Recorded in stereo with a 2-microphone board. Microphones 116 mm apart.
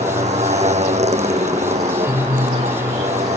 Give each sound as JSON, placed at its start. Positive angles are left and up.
{"t": 0.0, "sound": "a motorcycle", "side_deg": -70}